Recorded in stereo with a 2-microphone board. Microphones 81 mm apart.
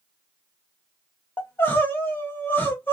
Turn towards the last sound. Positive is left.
turn(degrees=30)  # may be behind; listen again after turning